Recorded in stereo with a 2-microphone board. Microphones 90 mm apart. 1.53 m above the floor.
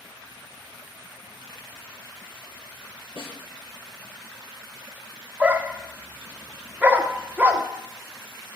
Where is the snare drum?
70° left (ahead or behind), 5 m.